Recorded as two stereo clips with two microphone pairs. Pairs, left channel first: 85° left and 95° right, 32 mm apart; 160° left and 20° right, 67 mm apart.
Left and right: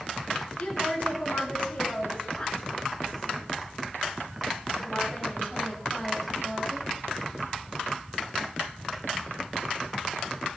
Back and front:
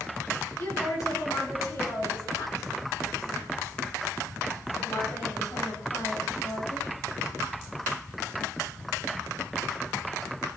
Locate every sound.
0.6 s a woman speaking: 135° left, 9 m; by 6.9 s 175° left, 6.5 m